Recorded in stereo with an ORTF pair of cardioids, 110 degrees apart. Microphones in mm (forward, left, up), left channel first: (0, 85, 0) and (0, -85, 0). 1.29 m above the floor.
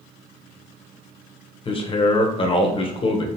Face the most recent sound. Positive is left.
turn(degrees=30)